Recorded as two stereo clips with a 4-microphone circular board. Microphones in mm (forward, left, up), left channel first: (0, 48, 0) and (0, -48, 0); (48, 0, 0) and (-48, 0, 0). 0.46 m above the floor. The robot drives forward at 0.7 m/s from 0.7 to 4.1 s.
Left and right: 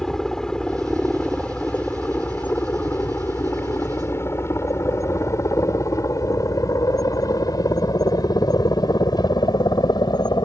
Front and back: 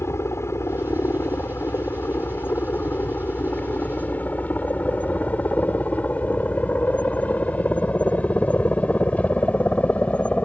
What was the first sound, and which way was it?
A helicopter, 10° left.